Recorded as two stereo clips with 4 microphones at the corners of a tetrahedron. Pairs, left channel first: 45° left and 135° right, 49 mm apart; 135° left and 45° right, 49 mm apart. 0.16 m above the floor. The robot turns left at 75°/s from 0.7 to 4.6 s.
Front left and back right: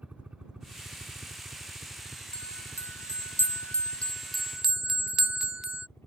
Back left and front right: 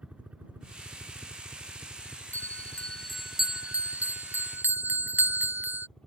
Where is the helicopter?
95° right; by 6.1 s 70° left.